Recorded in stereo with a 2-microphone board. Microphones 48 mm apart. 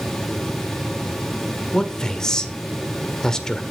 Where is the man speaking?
15° left (ahead or behind), 1.6 m.